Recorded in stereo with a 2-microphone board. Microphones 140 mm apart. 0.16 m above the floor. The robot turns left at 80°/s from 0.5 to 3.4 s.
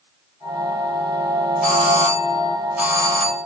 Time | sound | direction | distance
1.6 | a doorbell | 85° left | 5 m